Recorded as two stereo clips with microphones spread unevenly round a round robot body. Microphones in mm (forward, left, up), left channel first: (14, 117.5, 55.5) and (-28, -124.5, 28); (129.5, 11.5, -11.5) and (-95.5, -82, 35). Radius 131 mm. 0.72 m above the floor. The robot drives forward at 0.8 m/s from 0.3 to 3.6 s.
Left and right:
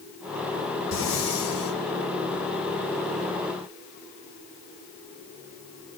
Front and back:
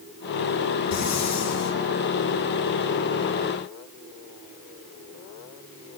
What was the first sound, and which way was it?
Breathing, 40° left.